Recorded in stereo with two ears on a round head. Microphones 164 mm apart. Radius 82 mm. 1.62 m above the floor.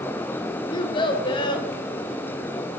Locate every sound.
0.7 s a child speaking: 25° left (ahead or behind), 0.7 m